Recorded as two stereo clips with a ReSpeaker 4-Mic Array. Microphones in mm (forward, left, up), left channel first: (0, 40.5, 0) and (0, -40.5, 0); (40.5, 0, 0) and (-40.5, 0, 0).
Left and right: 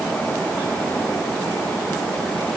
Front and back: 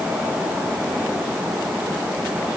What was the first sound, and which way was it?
Only background noise.